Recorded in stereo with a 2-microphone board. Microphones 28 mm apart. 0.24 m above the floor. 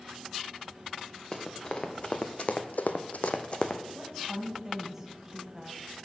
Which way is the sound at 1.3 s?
30° left (ahead or behind).